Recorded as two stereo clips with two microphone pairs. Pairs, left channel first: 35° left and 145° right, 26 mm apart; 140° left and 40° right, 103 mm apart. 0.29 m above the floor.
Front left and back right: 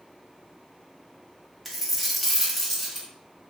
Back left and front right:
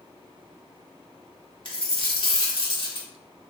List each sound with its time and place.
1.6 s a dropped coin: 125° left, 0.8 m